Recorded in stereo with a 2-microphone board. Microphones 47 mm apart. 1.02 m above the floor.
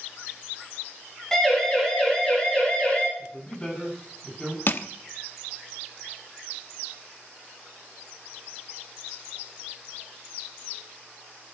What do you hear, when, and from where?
1.3 s a siren: 10° left (ahead or behind), 8 m; by 3.1 s 30° left (ahead or behind), 6.5 m
3.2 s a man speaking: 20° left (ahead or behind), 8 m
4.7 s crushing: 50° left (ahead or behind), 0.9 m